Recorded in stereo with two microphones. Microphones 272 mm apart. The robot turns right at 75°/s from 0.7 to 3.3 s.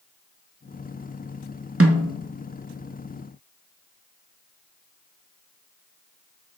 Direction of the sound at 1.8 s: 55° right (ahead or behind).